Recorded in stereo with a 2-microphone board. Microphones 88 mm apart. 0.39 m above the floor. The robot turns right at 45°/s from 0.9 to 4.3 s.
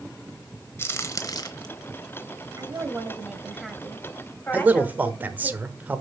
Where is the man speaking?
20° right (ahead or behind), 1.1 m.